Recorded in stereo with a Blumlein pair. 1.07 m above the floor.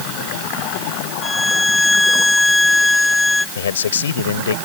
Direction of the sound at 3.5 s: 65° left.